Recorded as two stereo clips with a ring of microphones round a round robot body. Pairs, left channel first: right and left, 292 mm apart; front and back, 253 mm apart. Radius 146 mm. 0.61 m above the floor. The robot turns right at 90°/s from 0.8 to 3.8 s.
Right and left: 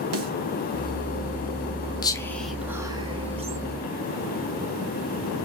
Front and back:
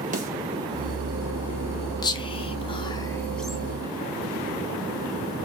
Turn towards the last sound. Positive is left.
turn(degrees=120)